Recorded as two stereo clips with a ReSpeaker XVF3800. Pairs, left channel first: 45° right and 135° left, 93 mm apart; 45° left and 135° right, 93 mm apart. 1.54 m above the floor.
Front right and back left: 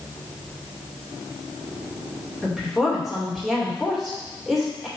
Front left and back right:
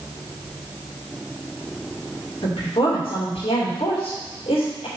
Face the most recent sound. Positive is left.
turn(degrees=45)